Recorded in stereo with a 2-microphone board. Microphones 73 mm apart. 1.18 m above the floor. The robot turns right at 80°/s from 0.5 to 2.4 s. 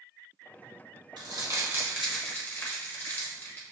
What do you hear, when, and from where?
1.2 s crumpling: 75° right (ahead or behind), 0.9 m; by 3.6 s 20° left (ahead or behind), 0.9 m